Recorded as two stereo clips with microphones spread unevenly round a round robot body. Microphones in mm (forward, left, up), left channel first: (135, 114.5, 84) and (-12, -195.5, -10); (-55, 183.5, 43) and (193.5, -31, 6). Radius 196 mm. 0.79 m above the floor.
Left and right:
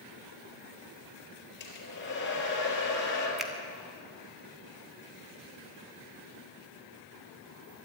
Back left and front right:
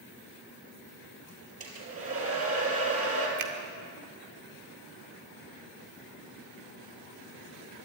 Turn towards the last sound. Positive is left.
turn(degrees=-30)